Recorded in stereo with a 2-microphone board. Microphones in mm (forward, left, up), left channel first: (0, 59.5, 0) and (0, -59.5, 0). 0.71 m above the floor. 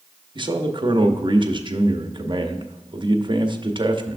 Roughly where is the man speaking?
Right.